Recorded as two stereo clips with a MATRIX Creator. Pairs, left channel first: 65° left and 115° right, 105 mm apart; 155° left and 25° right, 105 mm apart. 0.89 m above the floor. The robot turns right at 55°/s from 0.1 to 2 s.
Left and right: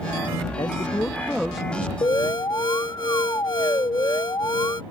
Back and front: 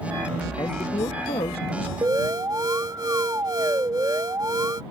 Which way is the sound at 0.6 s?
105° left.